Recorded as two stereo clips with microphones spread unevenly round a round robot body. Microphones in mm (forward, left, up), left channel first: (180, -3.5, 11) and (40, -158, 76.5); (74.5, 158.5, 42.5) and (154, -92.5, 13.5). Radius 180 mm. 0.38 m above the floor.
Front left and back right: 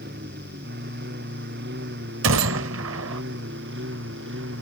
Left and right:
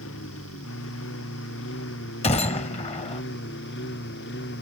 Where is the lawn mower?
165° left; by 4.6 s 170° left.